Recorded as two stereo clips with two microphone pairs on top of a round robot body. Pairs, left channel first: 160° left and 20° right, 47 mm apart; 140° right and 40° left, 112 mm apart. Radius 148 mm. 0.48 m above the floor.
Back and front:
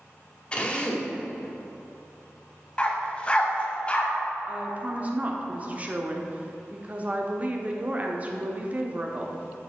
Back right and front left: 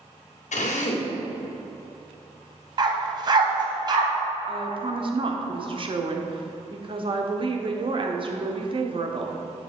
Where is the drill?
135° right, 1.3 m.